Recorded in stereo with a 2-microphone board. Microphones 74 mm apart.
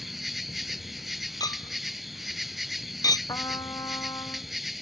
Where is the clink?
65° left (ahead or behind).